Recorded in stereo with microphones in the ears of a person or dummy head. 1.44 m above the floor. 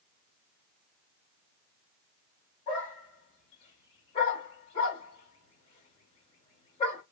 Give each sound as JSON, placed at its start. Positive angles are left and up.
{"t": 2.7, "sound": "a dog barking", "side_deg": 30, "distance_m": 2.0}